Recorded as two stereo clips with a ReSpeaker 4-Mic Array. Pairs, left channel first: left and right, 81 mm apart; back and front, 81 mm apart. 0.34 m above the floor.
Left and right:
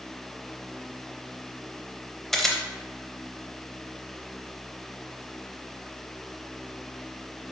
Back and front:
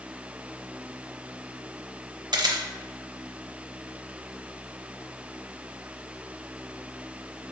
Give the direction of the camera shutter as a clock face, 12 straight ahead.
12 o'clock.